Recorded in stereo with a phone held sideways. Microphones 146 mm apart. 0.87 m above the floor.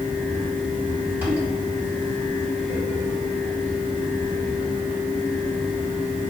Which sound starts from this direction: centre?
A fan, at 0.0 s.